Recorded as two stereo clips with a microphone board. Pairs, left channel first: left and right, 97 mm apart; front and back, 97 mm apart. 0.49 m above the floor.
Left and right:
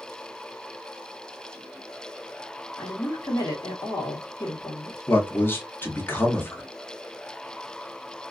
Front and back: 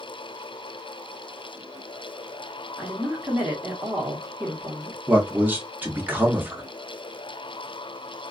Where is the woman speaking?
105° left, 1.3 m.